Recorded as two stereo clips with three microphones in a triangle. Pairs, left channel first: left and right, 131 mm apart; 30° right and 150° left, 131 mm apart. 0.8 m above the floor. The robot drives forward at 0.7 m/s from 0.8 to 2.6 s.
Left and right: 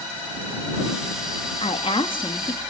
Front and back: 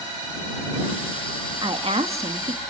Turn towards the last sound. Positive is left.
turn(degrees=140)